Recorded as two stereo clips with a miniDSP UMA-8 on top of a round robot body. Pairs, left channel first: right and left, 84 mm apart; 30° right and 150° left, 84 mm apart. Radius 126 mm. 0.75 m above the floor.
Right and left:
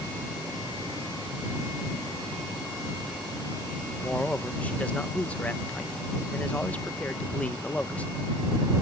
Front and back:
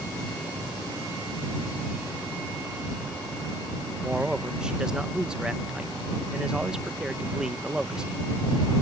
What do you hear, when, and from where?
4.0 s a man speaking: 140° right